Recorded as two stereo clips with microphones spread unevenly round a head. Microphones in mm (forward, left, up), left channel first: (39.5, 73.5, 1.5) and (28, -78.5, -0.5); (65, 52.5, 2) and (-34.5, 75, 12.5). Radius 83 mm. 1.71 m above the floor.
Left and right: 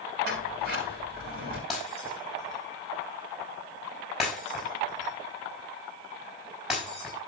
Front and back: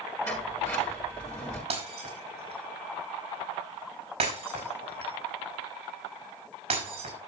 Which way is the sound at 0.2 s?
85° right.